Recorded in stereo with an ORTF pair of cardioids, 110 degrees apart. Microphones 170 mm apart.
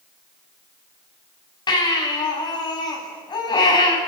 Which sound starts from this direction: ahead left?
A baby crying, at 1.7 s.